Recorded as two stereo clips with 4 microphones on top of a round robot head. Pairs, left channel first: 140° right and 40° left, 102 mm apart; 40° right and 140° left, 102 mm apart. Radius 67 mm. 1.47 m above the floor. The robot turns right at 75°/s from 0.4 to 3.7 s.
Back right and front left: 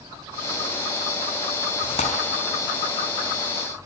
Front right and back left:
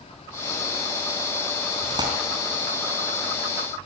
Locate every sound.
1.8 s tearing paper: straight behind, 4 m; by 2.1 s 160° right, 4 m